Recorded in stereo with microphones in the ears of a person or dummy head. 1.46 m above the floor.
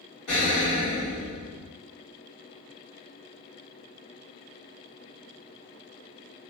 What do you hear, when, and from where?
0.3 s an explosion: 55° left (ahead or behind), 1.6 m